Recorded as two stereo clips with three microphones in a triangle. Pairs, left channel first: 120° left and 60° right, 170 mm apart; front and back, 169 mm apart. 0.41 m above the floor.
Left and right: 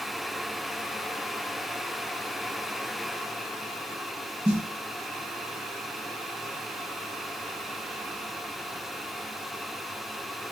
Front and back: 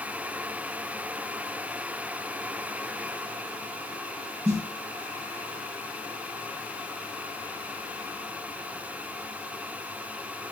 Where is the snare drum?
120° right, 1.9 m.